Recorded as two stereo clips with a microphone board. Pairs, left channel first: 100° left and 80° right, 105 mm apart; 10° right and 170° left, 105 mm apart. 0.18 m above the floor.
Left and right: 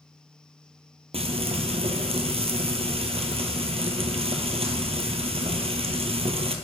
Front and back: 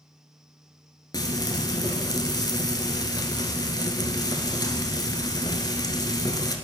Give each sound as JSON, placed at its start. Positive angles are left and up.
{"t": 1.1, "sound": "frying", "azimuth_deg": -65, "distance_m": 1.0}